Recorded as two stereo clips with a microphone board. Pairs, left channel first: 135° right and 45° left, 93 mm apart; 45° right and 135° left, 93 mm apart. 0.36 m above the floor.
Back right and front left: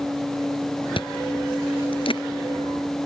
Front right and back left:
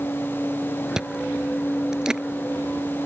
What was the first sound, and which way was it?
Chewing, 145° right.